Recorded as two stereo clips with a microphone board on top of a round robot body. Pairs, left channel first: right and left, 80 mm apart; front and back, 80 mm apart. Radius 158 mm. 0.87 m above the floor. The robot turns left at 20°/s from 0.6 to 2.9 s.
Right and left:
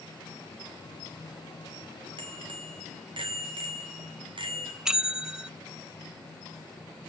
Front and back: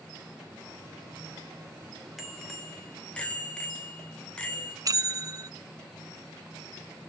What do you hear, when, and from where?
2.2 s a bicycle bell: 95° left, 3 m; by 4.8 s 80° left, 3 m
4.8 s a bell: 170° left, 0.7 m